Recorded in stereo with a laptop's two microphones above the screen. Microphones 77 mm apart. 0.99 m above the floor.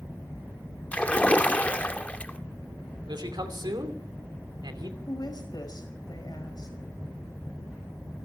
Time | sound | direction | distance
0.9 | a splash | 20° left (ahead or behind) | 1.1 m
3.1 | a man speaking | 70° right (ahead or behind) | 2.5 m
5.1 | a woman speaking | 60° left (ahead or behind) | 5 m